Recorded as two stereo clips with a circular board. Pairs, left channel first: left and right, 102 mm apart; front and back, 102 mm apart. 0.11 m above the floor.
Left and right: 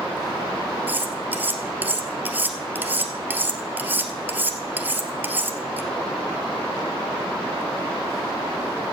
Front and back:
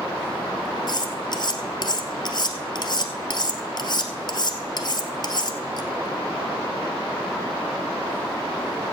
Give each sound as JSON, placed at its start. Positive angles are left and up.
{"t": 0.9, "sound": "cutlery clinking", "azimuth_deg": -25, "distance_m": 1.3}